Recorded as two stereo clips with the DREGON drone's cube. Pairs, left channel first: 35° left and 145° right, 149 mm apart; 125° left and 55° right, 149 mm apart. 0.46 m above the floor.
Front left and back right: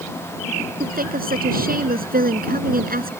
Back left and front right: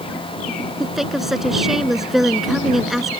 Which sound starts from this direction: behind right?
A woman speaking, at 0.8 s.